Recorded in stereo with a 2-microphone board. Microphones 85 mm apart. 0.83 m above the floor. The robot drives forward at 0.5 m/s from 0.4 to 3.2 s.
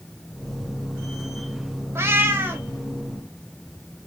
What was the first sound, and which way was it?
A cat meowing, 30° right (ahead or behind).